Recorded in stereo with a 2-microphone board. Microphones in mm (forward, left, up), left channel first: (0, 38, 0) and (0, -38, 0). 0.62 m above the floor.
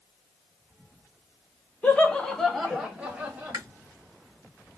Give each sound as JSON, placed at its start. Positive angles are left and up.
{"t": 1.8, "sound": "laughter", "side_deg": 15, "distance_m": 1.0}
{"t": 3.5, "sound": "chewing", "side_deg": -50, "distance_m": 1.1}